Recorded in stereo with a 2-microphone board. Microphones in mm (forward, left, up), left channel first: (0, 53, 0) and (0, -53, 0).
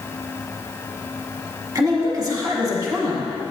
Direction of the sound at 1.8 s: 35° right (ahead or behind).